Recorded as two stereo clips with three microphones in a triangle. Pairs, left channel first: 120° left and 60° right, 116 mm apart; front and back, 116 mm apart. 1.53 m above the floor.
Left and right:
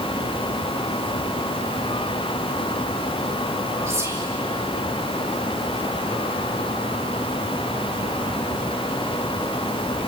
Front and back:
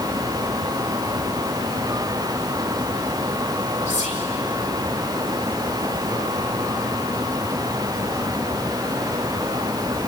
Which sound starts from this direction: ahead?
Whispering, at 3.9 s.